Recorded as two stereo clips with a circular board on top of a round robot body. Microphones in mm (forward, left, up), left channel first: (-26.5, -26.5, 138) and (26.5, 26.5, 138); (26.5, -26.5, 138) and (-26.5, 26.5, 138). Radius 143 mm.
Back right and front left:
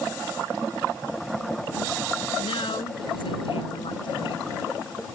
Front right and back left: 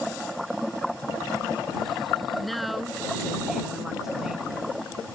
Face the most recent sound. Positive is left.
turn(degrees=-145)